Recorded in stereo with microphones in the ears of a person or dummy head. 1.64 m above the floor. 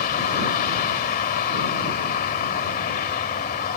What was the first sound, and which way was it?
A vehicle, 45° left (ahead or behind).